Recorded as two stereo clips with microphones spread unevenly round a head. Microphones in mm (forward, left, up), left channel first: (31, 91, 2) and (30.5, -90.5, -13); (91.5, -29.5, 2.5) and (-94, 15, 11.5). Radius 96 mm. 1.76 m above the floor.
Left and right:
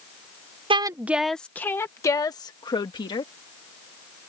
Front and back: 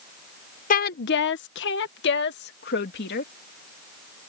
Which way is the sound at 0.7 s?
35° right.